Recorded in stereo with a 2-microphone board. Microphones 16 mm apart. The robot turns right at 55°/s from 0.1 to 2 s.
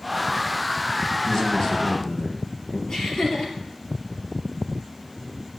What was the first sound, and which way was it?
A man speaking, 40° left.